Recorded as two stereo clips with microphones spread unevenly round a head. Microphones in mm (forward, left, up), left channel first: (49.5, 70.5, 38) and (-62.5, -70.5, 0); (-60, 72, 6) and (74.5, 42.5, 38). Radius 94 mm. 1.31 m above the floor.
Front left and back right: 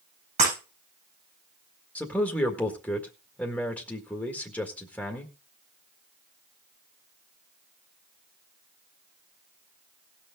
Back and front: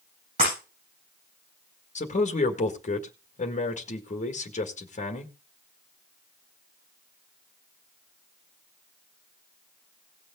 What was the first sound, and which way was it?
Breaking glass, 70° right.